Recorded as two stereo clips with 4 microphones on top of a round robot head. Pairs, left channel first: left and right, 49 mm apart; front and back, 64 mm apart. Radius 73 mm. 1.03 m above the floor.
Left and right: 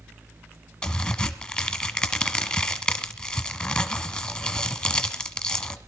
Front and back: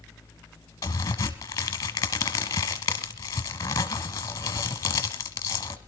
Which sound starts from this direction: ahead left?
A crack, at 0.8 s.